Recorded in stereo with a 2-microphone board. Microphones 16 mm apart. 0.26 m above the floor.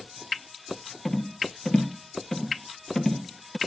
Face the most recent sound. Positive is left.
turn(degrees=25)  # may be behind; listen again after turning